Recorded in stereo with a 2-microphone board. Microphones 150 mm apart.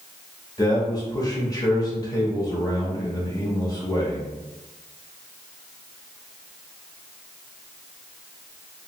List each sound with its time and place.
0.6 s a man speaking: 25° left (ahead or behind), 1.0 m